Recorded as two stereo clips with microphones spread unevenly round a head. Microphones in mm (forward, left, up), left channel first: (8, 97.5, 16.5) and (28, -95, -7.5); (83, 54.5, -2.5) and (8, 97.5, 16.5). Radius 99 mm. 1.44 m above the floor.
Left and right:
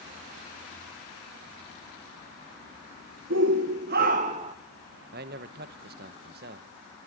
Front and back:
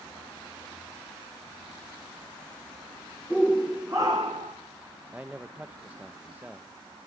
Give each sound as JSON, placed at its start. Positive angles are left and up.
{"t": 3.3, "sound": "a shout", "azimuth_deg": -115, "distance_m": 1.2}
{"t": 5.1, "sound": "a man speaking", "azimuth_deg": -130, "distance_m": 1.0}